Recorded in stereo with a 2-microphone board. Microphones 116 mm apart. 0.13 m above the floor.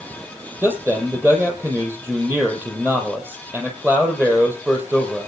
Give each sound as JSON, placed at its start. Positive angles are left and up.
{"t": 0.6, "sound": "a man speaking", "side_deg": -20, "distance_m": 4.0}